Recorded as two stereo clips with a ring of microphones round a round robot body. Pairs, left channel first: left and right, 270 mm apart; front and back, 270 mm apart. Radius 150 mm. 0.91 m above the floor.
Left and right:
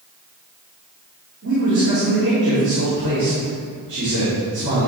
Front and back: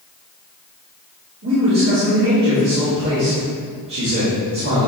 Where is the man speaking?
140° right, 3 m.